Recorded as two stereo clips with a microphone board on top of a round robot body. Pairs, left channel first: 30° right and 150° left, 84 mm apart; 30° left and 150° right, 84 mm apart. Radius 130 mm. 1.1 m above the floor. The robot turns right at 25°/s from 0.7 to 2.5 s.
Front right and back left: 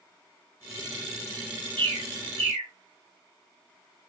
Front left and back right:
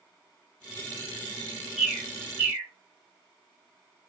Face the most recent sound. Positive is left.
turn(degrees=140)